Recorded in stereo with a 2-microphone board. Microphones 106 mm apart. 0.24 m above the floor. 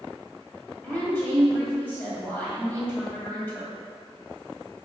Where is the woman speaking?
15° left (ahead or behind), 1.3 m.